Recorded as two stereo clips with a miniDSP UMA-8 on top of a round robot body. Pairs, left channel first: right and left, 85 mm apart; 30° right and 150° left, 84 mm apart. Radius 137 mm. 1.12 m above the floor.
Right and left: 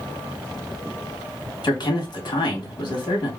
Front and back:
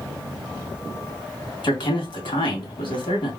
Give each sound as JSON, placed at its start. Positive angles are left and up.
{"t": 1.6, "sound": "a man speaking", "azimuth_deg": -55, "distance_m": 2.0}